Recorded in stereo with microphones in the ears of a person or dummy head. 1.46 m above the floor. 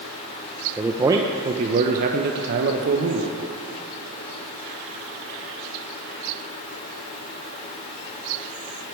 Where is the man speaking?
10° right (ahead or behind), 0.9 m; by 3.4 s 70° right (ahead or behind), 1.5 m.